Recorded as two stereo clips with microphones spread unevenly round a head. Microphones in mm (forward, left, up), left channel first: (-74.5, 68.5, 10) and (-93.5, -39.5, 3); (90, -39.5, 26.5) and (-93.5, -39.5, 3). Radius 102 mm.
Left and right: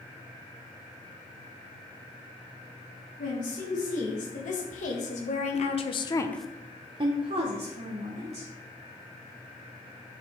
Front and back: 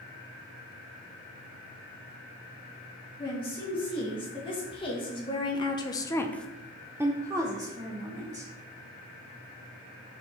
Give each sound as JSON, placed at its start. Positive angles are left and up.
{"t": 3.2, "sound": "a woman speaking", "azimuth_deg": 70, "distance_m": 3.0}